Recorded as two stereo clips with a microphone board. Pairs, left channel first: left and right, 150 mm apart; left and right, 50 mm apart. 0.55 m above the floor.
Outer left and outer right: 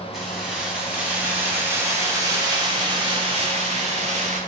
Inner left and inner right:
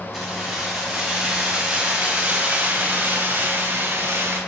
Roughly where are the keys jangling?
Centre.